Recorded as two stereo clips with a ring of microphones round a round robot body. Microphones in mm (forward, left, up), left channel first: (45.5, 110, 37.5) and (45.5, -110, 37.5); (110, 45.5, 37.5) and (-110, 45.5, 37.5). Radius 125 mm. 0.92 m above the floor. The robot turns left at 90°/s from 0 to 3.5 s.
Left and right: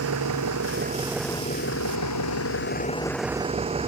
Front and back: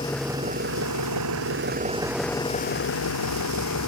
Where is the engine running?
70° right; by 3.9 s 25° right.